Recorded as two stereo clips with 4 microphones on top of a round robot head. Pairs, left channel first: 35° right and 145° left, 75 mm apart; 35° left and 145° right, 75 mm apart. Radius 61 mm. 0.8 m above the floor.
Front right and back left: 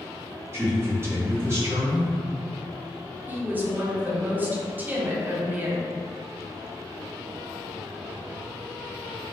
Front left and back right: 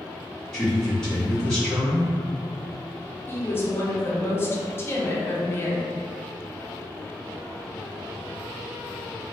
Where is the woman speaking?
85° left, 0.6 m.